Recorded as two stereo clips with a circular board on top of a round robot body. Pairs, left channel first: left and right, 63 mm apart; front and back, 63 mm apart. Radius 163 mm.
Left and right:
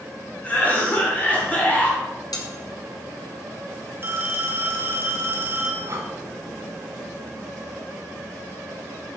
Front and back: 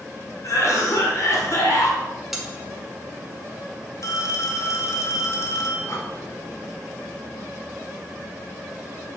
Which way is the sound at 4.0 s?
35° right.